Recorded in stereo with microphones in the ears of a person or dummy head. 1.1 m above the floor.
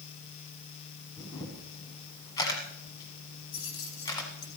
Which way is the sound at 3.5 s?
80° left.